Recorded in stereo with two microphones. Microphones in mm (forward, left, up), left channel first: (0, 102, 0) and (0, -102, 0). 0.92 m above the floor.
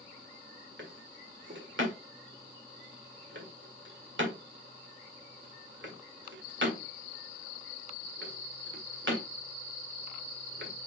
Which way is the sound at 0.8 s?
75° right (ahead or behind).